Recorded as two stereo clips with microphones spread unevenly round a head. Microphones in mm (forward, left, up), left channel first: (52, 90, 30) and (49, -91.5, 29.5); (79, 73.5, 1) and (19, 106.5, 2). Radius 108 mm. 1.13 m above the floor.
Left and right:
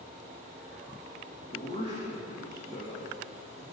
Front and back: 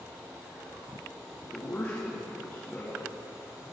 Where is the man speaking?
35° left, 2.0 m.